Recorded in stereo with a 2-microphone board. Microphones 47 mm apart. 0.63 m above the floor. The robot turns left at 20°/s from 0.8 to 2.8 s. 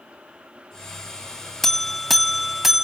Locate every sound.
1.6 s a buzzer: 10° left (ahead or behind), 0.5 m; by 2.9 s 5° right (ahead or behind), 0.5 m